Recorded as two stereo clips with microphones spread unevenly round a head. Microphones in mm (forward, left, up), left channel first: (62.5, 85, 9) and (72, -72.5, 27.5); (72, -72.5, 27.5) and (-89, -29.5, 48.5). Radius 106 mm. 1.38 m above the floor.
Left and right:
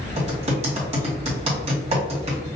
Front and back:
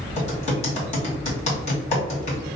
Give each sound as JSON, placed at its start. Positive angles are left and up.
{"t": 0.2, "sound": "typing on a keyboard", "azimuth_deg": -60, "distance_m": 1.8}